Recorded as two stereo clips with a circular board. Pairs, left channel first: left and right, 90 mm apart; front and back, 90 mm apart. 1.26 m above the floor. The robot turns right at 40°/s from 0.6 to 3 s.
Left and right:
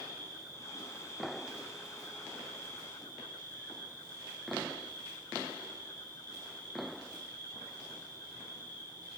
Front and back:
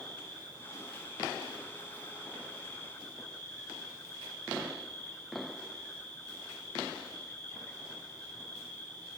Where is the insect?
40° right, 3.5 m; by 9.2 s 55° left, 3.5 m.